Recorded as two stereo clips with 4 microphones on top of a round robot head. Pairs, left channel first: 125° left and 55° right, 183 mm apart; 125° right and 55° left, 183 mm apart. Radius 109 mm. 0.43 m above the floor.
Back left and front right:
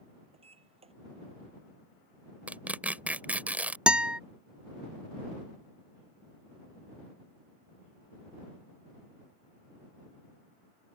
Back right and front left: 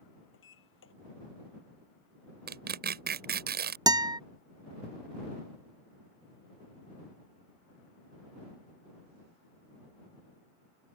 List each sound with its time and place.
0.3 s a sliding door: 115° right
2.5 s tearing paper: 30° left
3.9 s a guitar: 25° left